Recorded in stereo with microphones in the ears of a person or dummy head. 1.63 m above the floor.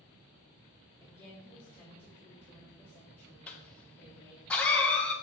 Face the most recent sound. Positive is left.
turn(degrees=10)  # may be behind; listen again after turning